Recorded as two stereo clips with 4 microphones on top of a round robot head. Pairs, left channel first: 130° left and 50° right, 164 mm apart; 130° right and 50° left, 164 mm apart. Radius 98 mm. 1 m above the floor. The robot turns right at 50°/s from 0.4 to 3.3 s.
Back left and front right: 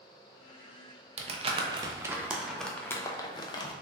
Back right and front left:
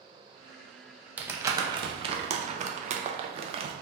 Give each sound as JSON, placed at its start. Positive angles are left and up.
{"t": 1.2, "sound": "crumpling", "azimuth_deg": -25, "distance_m": 0.5}